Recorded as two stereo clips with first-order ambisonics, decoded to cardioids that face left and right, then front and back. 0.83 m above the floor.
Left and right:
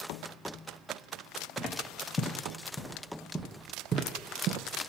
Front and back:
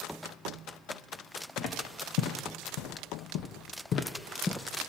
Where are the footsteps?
30° left, 2.0 m; by 4.9 s 80° right, 1.2 m.